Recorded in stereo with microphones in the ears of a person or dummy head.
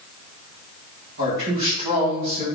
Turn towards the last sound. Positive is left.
turn(degrees=-60)  # may be behind; listen again after turning